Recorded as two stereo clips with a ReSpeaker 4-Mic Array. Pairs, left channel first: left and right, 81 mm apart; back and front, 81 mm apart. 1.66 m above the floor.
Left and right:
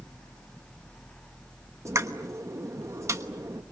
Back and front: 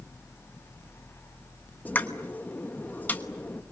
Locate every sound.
1.9 s a pop: 120° right, 1.2 m